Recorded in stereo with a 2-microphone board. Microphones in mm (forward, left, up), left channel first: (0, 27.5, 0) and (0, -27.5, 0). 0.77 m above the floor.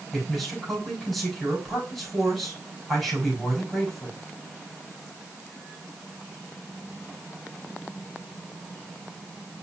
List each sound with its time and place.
0.1 s a man speaking: centre (ahead or behind), 5.5 m